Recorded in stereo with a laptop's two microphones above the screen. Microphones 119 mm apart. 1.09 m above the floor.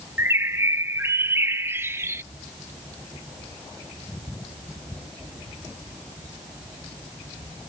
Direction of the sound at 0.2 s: 20° right (ahead or behind).